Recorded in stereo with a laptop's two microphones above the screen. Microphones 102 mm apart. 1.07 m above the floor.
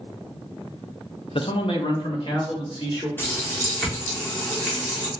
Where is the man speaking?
60° left (ahead or behind), 0.5 m; by 3.1 s 50° left (ahead or behind), 2.5 m.